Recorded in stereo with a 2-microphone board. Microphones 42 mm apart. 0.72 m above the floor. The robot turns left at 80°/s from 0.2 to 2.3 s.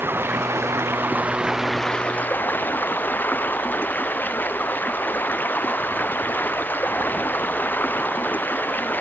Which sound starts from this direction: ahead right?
Running water, at 0.0 s.